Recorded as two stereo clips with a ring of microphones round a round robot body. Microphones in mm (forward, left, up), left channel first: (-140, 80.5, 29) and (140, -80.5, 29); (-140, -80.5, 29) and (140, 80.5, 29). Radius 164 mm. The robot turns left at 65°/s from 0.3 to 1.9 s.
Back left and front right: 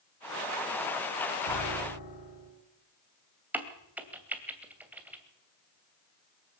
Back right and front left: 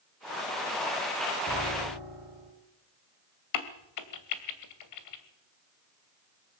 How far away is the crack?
About 2 m.